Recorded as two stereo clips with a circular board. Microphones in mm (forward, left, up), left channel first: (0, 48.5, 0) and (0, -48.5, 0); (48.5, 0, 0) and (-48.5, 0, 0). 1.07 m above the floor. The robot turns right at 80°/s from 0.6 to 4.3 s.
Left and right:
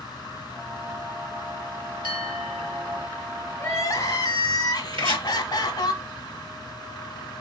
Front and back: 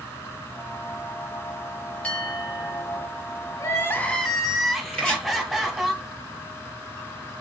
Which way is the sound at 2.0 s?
75° left.